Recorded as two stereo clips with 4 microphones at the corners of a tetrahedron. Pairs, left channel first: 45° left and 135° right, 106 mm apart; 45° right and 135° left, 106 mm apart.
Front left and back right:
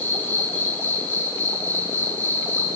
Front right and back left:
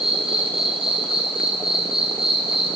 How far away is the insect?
About 3 m.